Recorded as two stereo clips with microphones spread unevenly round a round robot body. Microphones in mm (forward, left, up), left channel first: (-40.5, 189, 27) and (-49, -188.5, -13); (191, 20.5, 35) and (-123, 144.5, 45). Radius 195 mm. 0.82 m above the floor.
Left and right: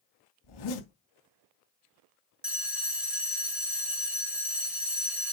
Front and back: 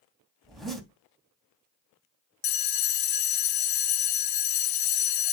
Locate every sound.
0.4 s a zipper: 70° left, 3 m
2.4 s a bell: 5° right, 1.1 m